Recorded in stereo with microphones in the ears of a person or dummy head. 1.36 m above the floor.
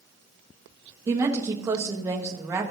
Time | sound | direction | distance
1.1 | a woman speaking | 20° right (ahead or behind) | 1.1 m